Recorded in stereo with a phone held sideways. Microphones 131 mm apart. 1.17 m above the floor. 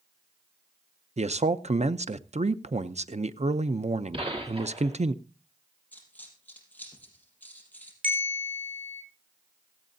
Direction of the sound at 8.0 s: 75° right (ahead or behind).